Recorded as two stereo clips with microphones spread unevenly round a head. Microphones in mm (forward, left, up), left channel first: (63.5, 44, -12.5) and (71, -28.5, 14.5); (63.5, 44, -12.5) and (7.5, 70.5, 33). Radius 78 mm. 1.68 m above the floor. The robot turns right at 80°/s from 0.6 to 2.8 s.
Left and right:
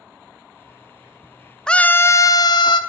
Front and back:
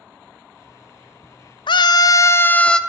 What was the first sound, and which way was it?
A scream, straight ahead.